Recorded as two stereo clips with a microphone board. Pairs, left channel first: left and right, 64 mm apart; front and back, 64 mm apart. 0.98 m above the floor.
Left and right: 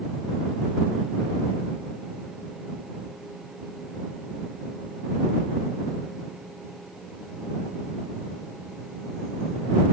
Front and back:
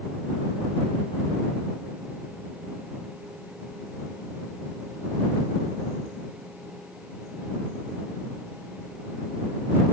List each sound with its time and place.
Only background noise.